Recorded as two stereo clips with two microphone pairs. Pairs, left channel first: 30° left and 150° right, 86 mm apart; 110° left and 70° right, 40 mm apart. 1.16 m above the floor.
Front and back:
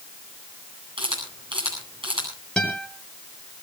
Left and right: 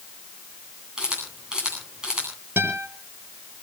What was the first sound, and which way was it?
A camera shutter, 140° right.